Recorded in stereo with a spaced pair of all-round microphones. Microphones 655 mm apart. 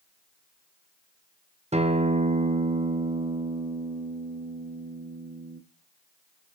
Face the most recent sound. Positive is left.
turn(degrees=-10)  # may be behind; listen again after turning